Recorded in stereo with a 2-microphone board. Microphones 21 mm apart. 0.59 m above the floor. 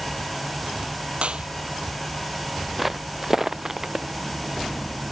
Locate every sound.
1.2 s a clap: 60° right (ahead or behind)
2.8 s footsteps: 5° right (ahead or behind); by 4.0 s 30° right (ahead or behind)